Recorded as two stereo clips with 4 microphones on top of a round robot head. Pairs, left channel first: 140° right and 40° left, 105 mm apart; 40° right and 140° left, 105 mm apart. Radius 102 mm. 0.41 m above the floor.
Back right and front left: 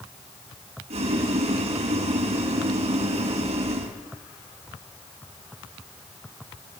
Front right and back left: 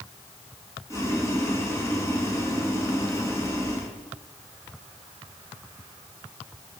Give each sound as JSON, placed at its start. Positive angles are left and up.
{"t": 0.9, "sound": "boiling", "azimuth_deg": 20, "distance_m": 4.5}